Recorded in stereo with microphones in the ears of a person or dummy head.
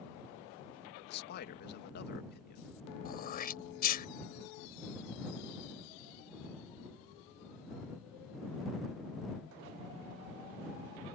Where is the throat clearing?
50° left (ahead or behind).